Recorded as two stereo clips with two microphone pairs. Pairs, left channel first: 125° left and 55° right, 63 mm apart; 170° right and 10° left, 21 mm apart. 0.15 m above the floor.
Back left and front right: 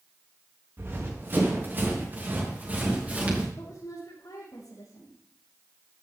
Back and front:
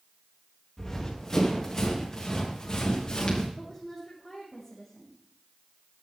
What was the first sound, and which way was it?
Running footsteps, 110° right.